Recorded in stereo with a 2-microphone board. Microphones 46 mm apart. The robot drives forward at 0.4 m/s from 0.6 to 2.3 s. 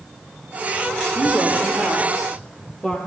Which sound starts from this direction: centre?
A woman speaking, at 1.1 s.